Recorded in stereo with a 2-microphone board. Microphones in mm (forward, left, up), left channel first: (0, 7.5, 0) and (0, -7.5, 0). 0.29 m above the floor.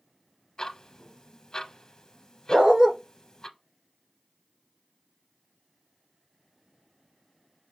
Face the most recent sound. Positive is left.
turn(degrees=-75)  # may be behind; listen again after turning